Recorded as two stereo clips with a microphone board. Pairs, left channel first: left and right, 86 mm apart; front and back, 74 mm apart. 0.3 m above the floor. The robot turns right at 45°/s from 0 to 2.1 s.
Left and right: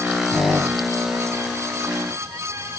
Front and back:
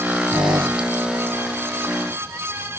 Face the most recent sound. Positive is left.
turn(degrees=-85)